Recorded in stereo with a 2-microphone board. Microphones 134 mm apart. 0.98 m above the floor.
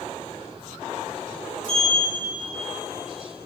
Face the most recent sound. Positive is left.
turn(degrees=70)  # may be behind; listen again after turning